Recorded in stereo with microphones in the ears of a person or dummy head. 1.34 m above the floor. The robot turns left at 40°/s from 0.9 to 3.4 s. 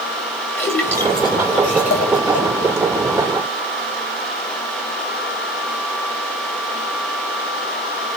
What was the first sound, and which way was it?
A splash, 15° left (ahead or behind).